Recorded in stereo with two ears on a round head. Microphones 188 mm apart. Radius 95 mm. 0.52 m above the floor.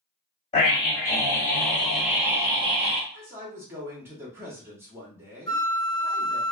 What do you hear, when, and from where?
0.5 s a scream: 30° left (ahead or behind), 1.8 m; by 3.0 s 35° right (ahead or behind), 1.2 m
3.1 s a man speaking: 10° right (ahead or behind), 1.1 m
5.5 s a flute: 5° left (ahead or behind), 0.8 m